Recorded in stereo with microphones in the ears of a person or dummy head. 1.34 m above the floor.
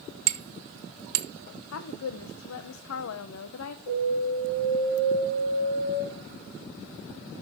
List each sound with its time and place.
0.3 s hammering: 85° right, 1.1 m
1.7 s a woman speaking: 85° left, 0.7 m
3.9 s an alarm: 65° left (ahead or behind), 7.5 m